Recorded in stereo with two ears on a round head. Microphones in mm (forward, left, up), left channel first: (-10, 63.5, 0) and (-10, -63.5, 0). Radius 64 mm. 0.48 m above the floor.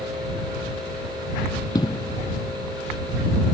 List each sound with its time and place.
1.8 s an explosion: 25° left (ahead or behind)